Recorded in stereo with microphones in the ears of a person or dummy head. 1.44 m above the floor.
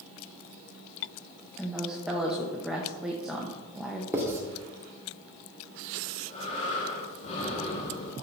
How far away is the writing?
About 1.9 m.